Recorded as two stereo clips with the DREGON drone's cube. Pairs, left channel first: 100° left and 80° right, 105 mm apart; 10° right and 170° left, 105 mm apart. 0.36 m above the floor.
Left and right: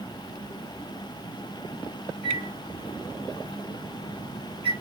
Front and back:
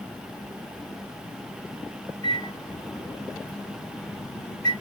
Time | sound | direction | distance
2.2 | a microwave | 60° right | 3 m